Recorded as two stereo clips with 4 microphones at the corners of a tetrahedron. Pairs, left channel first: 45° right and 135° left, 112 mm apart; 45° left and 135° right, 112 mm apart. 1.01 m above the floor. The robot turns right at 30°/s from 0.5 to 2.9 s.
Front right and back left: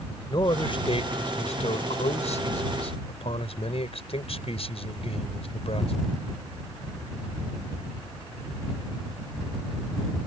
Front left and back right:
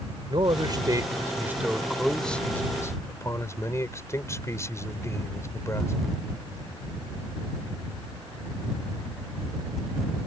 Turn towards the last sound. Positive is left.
turn(degrees=-20)